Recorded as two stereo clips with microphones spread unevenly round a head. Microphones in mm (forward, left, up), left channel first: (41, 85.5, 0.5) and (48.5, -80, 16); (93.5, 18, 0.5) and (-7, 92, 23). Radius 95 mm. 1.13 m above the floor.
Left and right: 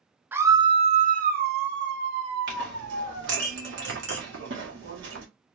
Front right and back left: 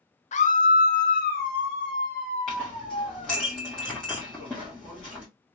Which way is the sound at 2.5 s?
125° right.